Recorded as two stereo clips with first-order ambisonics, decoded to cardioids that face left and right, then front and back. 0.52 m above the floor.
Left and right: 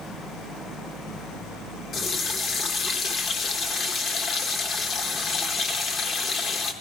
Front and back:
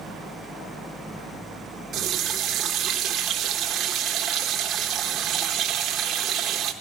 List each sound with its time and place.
1.9 s a running tap: 140° left, 0.9 m